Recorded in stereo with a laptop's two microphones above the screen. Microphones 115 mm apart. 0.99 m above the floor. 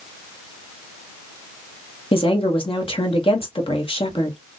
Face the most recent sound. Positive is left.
turn(degrees=50)  # may be behind; listen again after turning